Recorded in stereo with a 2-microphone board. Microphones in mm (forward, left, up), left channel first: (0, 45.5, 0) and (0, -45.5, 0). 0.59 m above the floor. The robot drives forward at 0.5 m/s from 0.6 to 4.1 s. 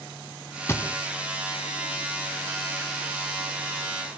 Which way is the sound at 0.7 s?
30° left (ahead or behind).